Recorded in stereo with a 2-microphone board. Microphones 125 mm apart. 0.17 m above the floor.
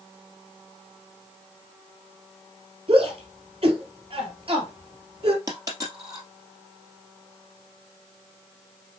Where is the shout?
45° right (ahead or behind), 4 m.